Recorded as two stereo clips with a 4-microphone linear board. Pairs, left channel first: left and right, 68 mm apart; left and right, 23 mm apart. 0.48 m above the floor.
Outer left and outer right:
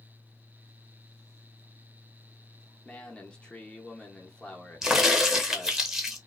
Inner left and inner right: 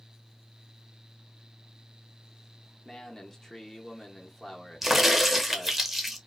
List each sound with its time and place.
2.9 s a man speaking: 15° left (ahead or behind), 0.8 m
4.8 s a crack: 10° right (ahead or behind), 0.6 m